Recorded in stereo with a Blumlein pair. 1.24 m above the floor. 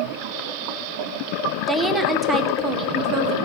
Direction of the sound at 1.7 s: 5° right.